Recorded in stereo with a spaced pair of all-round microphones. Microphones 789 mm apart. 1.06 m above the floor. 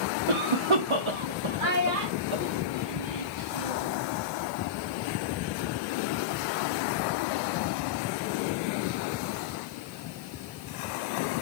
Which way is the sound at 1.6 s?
85° right.